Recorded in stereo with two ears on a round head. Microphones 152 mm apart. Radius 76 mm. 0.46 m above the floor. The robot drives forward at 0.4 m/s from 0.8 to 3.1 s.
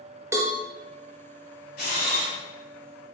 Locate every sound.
0.3 s a cowbell: 15° right (ahead or behind), 0.7 m
1.8 s a camera shutter: 55° left (ahead or behind), 1.3 m; by 2.3 s 50° left (ahead or behind), 1.4 m